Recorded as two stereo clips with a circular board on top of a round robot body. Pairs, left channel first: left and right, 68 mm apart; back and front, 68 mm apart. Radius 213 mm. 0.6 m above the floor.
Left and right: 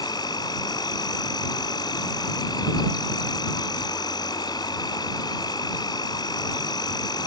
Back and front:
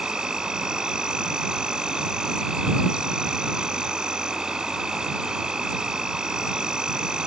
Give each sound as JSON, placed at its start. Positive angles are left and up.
{"t": 0.0, "sound": "an insect", "azimuth_deg": 80}